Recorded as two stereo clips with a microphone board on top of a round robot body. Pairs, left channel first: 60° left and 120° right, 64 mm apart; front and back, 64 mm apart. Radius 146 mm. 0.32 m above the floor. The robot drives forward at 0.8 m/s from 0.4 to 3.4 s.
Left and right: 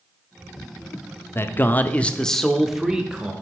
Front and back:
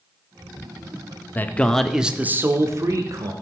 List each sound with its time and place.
1.4 s a man speaking: 40° left, 1.0 m; by 3.3 s 165° left, 1.4 m